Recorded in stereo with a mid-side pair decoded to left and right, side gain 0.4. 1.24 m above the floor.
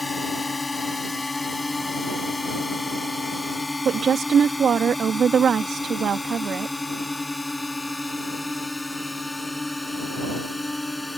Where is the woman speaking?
55° right.